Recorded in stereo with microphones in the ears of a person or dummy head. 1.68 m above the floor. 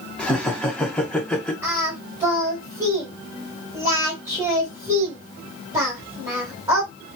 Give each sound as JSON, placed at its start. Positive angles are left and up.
{"t": 0.2, "sound": "laughter", "side_deg": 5, "distance_m": 1.1}
{"t": 1.6, "sound": "singing", "side_deg": -15, "distance_m": 1.8}